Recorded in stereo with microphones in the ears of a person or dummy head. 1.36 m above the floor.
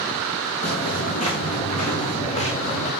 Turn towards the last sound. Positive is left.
turn(degrees=25)  # may be behind; listen again after turning